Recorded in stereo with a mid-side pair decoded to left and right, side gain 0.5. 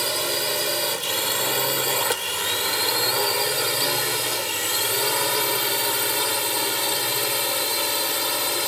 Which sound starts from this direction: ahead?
A drone, at 0.0 s.